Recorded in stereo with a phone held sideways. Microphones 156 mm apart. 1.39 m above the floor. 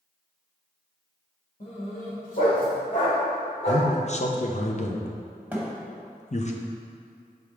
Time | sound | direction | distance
1.6 | a dog barking | 45° left (ahead or behind) | 1.8 m
3.7 | a man speaking | 45° left (ahead or behind) | 0.7 m
5.5 | a thud | 10° right (ahead or behind) | 1.3 m